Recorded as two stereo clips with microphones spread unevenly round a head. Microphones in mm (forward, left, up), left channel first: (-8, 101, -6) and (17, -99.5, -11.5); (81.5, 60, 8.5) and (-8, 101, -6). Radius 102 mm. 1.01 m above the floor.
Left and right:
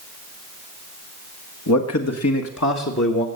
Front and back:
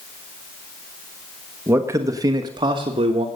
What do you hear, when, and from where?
1.7 s a man speaking: 95° left, 1.5 m; by 3.2 s 140° left, 1.4 m